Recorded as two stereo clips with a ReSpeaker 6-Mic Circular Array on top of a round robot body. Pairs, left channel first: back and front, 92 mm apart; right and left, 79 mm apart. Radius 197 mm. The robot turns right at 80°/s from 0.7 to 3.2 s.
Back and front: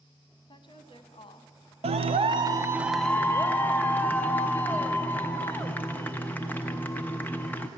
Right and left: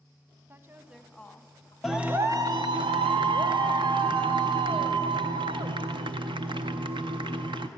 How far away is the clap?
About 0.5 m.